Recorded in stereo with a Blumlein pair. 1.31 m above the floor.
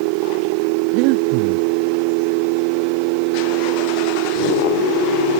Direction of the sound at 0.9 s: 45° right.